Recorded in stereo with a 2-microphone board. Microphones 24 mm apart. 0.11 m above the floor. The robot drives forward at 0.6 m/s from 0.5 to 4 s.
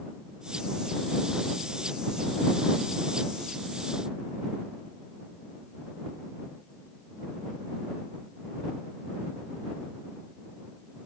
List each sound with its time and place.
Only background noise.